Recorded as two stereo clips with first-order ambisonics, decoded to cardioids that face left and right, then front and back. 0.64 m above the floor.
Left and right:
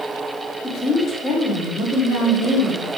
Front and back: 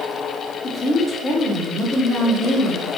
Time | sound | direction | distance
0.6 | a woman speaking | 70° left | 0.7 m